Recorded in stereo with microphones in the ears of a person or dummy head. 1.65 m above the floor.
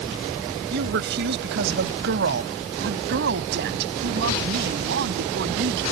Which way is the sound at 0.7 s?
65° right (ahead or behind).